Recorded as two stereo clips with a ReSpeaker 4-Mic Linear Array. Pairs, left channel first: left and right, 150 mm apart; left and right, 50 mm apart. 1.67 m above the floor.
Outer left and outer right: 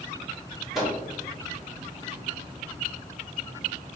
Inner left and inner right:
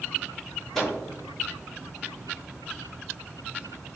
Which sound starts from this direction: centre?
A microwave, at 0.8 s.